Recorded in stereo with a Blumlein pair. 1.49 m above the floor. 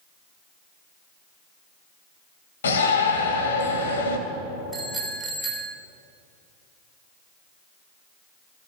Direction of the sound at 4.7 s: 10° right.